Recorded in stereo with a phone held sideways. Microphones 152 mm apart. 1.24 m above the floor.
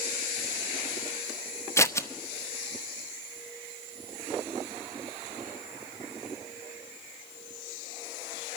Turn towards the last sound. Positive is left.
turn(degrees=20)  # may be behind; listen again after turning